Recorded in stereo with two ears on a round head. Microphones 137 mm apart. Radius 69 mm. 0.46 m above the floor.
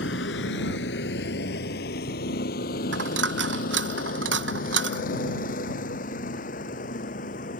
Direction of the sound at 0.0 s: 80° left.